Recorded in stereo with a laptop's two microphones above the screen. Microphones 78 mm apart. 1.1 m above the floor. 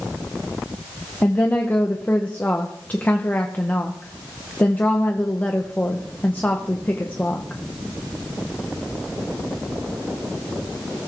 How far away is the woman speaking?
About 0.8 m.